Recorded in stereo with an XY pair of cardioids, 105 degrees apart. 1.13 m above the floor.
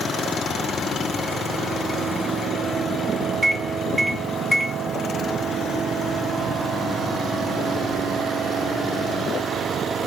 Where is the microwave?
5° right, 0.6 m.